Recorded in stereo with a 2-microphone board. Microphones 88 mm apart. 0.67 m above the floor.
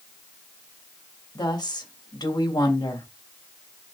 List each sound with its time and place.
1.4 s a woman speaking: 55° left (ahead or behind), 3 m